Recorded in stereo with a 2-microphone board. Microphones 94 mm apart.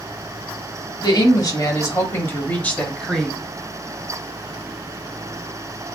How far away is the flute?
I don't hear a flute.